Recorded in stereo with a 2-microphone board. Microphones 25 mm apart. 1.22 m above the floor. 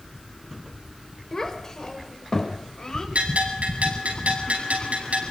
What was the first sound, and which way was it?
A child speaking, 20° left (ahead or behind).